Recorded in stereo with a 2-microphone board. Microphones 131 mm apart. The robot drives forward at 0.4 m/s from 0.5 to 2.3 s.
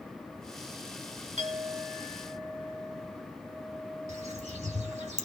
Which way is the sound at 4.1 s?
60° right (ahead or behind).